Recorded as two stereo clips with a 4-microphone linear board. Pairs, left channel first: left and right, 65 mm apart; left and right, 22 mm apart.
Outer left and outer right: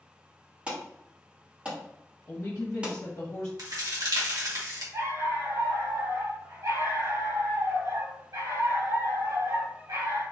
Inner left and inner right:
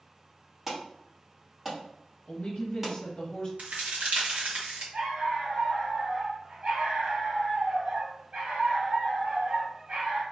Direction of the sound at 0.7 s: 20° right (ahead or behind).